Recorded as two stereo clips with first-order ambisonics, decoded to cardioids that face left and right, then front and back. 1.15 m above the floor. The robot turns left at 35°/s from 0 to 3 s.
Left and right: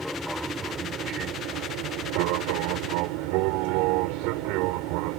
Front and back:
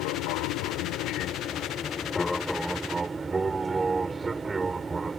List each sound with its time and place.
0.0 s an aircraft: straight ahead; by 5.2 s 105° right